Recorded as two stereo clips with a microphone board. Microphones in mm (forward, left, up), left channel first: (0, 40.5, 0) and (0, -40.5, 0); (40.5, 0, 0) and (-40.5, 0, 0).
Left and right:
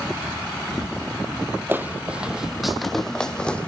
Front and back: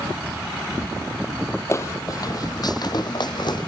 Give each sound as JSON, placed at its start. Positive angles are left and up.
{"t": 1.7, "sound": "footsteps", "azimuth_deg": -40, "distance_m": 1.4}